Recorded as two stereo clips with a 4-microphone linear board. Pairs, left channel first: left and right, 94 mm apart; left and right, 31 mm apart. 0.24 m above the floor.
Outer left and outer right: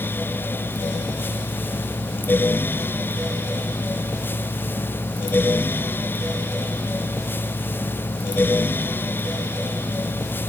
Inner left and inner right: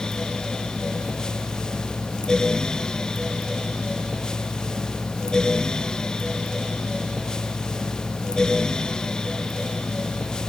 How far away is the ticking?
No ticking in this recording.